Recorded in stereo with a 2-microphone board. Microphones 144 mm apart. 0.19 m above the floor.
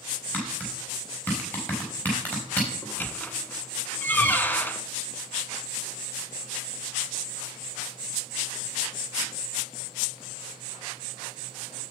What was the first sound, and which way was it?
Tapping, 10° left (ahead or behind).